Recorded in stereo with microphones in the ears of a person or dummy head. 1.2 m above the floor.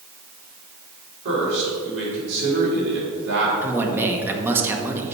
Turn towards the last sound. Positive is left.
turn(degrees=-10)  # may be behind; listen again after turning